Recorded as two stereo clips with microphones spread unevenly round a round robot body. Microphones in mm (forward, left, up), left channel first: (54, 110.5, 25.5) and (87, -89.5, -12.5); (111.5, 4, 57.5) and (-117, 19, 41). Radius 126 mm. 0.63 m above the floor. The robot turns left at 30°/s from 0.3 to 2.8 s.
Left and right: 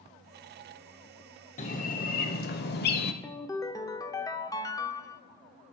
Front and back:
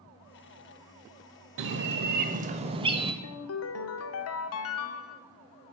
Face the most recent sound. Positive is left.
turn(degrees=25)